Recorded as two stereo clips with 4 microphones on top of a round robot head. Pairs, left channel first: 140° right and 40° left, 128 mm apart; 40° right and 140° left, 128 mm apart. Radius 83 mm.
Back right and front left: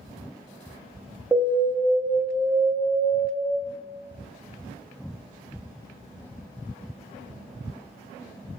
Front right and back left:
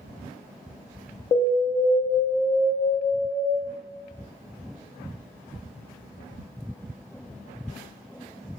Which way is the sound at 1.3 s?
50° right.